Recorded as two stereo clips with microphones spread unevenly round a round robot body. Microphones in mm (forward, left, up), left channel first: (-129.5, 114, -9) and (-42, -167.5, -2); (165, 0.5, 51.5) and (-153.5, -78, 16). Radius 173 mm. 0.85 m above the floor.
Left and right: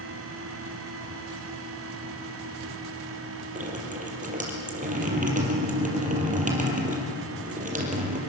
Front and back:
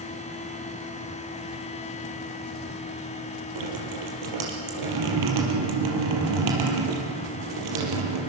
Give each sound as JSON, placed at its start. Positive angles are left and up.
{"t": 3.5, "sound": "dripping", "azimuth_deg": -135, "distance_m": 5.0}